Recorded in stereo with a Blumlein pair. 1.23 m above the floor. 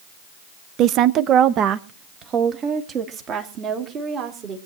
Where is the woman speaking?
35° right, 0.6 m; by 4.6 s 30° right, 3 m.